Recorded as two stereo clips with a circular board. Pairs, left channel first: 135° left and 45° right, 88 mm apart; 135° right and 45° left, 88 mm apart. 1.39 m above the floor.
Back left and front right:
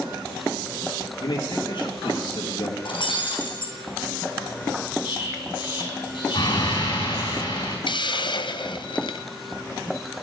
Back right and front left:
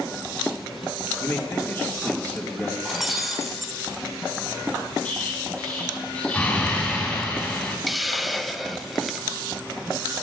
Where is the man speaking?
165° left, 2 m; by 2.8 s 150° left, 2.5 m.